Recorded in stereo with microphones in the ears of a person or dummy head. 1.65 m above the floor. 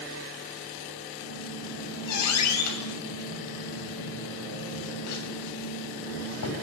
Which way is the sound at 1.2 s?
85° left.